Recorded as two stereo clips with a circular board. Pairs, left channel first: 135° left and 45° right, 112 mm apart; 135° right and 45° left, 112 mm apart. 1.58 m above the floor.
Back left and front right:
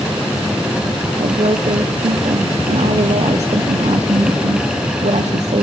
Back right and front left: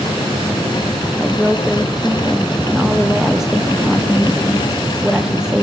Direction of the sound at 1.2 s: 40° right.